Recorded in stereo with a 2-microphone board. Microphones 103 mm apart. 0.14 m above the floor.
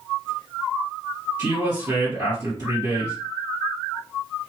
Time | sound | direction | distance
1.4 | a woman speaking | 25° right (ahead or behind) | 1.9 m